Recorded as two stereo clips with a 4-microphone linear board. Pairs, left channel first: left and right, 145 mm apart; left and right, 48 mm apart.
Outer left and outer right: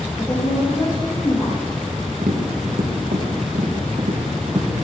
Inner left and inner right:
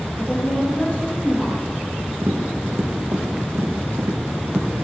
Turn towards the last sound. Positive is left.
turn(degrees=-75)  # may be behind; listen again after turning